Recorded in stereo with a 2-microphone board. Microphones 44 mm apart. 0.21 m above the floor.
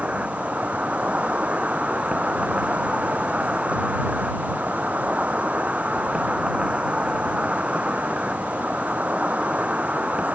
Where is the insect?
30° right (ahead or behind).